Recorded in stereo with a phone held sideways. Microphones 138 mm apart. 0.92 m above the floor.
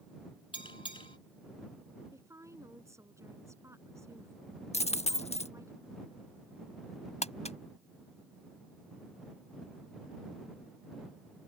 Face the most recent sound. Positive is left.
turn(degrees=55)  # may be behind; listen again after turning